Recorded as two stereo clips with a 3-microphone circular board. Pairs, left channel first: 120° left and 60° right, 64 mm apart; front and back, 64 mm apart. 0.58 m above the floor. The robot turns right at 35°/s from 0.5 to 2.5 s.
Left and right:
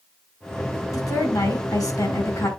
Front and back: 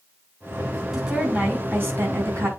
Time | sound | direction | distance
0.9 | a woman speaking | 95° left | 5.5 m